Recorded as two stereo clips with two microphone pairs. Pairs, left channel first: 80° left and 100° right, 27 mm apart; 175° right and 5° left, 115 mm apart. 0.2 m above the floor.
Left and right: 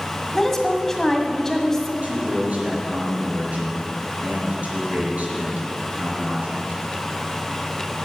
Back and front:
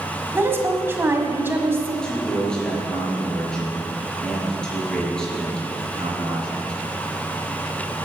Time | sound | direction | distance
0.3 | a woman speaking | 25° left | 1.7 m
2.0 | a man speaking | 90° right | 4.5 m